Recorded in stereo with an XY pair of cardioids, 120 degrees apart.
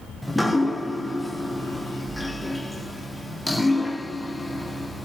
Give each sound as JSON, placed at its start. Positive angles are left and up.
{"t": 0.2, "sound": "dripping", "azimuth_deg": 5, "distance_m": 0.6}